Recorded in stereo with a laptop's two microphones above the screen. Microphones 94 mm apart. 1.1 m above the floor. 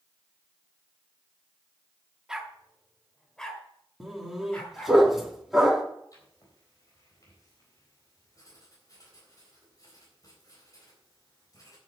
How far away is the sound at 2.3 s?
About 1.2 m.